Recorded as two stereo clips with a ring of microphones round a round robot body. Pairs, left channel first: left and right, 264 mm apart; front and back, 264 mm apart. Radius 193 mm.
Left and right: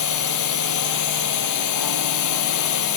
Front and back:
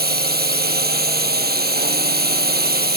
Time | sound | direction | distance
0.0 | a drone | 125° left | ?